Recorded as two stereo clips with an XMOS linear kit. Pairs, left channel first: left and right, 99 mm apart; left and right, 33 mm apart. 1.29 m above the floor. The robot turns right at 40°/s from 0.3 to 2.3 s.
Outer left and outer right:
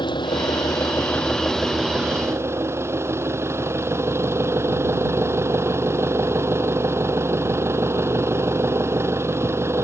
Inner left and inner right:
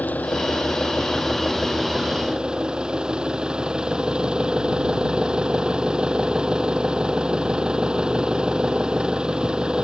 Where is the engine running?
125° left; by 9.8 s 155° right.